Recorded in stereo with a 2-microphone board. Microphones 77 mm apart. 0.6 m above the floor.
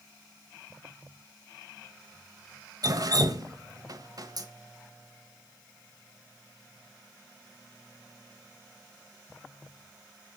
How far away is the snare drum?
No snare drum in this recording.